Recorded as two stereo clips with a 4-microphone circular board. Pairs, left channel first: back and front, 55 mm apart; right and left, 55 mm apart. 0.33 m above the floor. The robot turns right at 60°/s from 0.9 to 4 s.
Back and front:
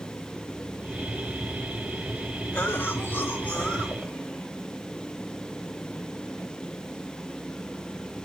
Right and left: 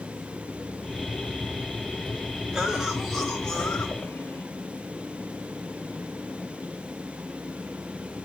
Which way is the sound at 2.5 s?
150° left.